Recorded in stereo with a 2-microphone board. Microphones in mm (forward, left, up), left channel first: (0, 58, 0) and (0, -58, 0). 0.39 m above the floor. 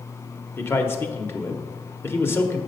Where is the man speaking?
20° left (ahead or behind), 0.8 m.